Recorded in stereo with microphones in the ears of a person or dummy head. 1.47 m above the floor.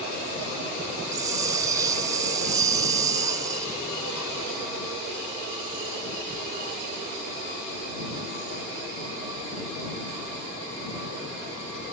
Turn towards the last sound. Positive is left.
turn(degrees=-20)  # may be behind; listen again after turning